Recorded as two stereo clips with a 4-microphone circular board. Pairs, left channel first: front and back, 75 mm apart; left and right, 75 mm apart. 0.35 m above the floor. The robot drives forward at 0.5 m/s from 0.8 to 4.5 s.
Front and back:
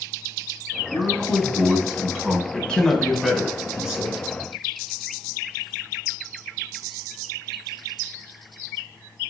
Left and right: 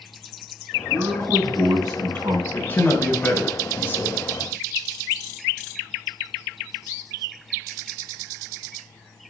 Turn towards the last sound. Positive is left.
turn(degrees=130)